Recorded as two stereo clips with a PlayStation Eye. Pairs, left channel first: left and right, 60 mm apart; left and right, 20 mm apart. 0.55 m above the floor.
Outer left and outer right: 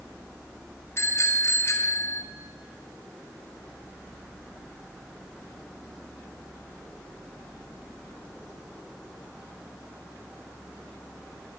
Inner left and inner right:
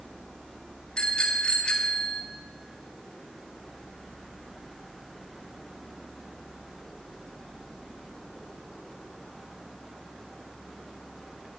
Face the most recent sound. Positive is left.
turn(degrees=45)  # may be behind; listen again after turning